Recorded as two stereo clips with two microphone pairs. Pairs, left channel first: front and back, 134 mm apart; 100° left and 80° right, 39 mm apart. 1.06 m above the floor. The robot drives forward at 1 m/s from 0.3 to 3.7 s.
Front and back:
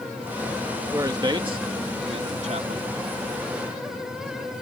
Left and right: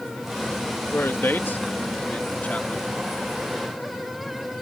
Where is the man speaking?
115° left; by 2.9 s 150° left.